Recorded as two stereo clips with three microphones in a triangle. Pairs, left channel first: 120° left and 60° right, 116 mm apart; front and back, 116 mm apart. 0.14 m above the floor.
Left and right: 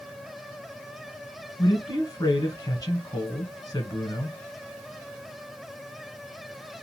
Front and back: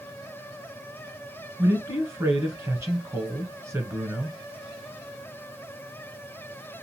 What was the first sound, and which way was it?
A man speaking, 140° left.